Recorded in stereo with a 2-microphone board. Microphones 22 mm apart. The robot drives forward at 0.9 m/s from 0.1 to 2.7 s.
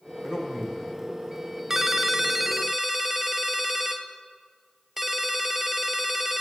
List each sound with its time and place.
0.2 s a man speaking: 40° right (ahead or behind), 5 m; by 0.8 s 45° right (ahead or behind), 4.5 m
1.7 s a ringtone: 20° right (ahead or behind), 0.5 m; by 6.4 s 10° right (ahead or behind), 0.9 m